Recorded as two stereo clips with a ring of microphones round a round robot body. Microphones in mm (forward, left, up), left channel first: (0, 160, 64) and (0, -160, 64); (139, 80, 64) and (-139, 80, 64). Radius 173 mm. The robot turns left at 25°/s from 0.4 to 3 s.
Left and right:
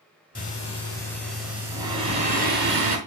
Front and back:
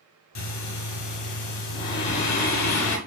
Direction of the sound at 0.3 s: 25° left.